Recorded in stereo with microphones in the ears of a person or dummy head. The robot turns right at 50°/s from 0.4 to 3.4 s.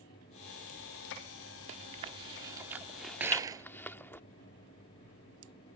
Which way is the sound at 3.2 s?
10° right (ahead or behind).